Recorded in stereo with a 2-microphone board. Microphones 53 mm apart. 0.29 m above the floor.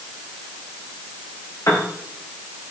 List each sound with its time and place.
1.7 s a piano: 80° left, 3.5 m